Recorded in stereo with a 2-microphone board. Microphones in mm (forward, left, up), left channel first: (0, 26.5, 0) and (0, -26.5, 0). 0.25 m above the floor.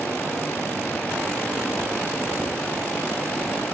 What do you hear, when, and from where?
0.0 s running water: 35° left (ahead or behind), 3.5 m